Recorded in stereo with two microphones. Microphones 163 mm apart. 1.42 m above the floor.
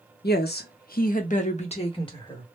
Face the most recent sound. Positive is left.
turn(degrees=30)  # may be behind; listen again after turning